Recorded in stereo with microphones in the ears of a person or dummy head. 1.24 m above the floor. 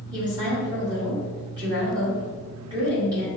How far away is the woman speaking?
About 1.8 m.